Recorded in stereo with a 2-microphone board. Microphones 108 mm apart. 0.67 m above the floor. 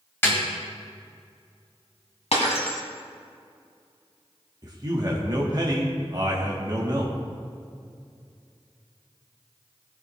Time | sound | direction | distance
0.2 | a snare drum | 20° left (ahead or behind) | 2.5 m
2.3 | breaking glass | 75° left (ahead or behind) | 1.8 m
4.6 | a man speaking | 35° right (ahead or behind) | 1.3 m